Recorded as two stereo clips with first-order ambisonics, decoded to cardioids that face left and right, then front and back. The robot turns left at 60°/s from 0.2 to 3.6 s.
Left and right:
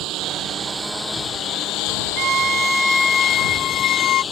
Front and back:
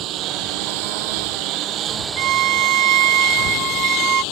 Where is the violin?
140° right; by 4.2 s 135° left.